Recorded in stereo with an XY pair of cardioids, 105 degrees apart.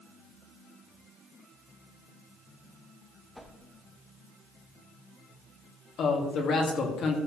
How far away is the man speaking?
About 2 m.